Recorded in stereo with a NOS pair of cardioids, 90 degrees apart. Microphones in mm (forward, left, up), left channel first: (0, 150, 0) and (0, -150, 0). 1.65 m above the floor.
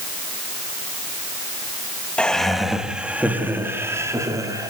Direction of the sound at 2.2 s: 5° left.